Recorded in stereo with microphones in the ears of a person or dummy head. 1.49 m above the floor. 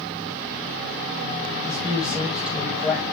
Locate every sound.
1.6 s a man speaking: 5° right (ahead or behind), 8 m